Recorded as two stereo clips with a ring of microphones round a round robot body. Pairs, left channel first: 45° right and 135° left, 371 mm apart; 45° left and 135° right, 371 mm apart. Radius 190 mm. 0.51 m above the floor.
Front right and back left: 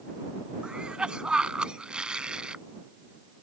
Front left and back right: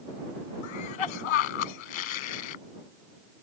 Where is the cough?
45° left.